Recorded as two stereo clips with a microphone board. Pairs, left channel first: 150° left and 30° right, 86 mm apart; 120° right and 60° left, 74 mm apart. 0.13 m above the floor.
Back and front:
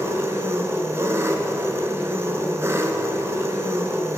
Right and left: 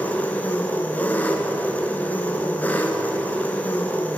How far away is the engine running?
About 0.7 m.